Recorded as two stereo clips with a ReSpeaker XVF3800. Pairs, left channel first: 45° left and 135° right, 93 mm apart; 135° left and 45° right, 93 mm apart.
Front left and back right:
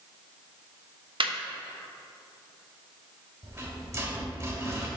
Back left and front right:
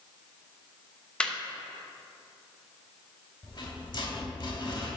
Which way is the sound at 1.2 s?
145° right.